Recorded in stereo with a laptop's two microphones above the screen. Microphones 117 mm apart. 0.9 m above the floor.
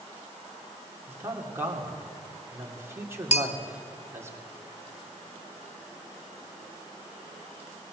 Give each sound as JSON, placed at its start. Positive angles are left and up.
{"t": 1.1, "sound": "a man speaking", "side_deg": -20, "distance_m": 2.5}
{"t": 3.3, "sound": "a bell", "side_deg": 65, "distance_m": 1.0}